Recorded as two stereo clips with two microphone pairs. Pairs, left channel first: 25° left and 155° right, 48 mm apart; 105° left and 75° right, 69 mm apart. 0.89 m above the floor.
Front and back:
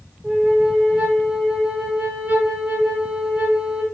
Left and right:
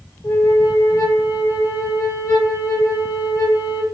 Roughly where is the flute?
Behind left.